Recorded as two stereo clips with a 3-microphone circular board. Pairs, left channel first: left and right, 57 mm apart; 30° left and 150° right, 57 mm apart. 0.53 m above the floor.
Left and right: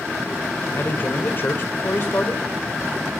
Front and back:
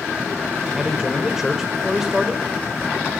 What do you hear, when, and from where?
0.8 s a man speaking: 130° left, 2.5 m